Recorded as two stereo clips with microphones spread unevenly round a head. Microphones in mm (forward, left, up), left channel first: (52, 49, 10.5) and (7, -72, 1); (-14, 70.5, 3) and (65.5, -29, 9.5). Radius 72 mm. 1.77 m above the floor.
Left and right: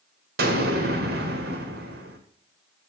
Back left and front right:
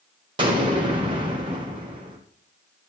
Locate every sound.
0.4 s an explosion: 110° right, 1.8 m